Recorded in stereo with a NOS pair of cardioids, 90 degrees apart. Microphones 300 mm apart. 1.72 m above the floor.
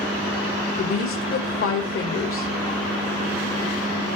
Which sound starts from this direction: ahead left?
A woman speaking, at 0.8 s.